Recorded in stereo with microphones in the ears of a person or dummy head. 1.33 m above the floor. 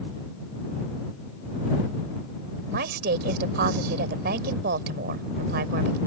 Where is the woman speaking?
65° right (ahead or behind).